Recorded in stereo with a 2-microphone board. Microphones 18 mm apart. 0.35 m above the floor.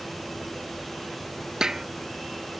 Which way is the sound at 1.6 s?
35° right (ahead or behind).